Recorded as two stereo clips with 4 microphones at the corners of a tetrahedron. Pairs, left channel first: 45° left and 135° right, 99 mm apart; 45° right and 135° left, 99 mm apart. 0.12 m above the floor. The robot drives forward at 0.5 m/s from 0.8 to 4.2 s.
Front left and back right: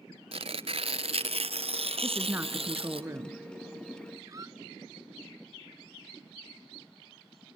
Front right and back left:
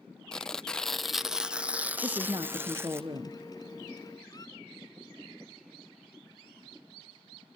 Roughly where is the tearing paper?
Behind right.